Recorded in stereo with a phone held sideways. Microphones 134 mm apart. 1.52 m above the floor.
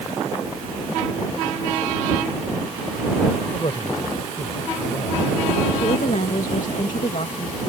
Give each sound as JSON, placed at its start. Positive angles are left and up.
{"t": 3.5, "sound": "a man speaking", "side_deg": 45}
{"t": 5.8, "sound": "a woman speaking", "side_deg": 70}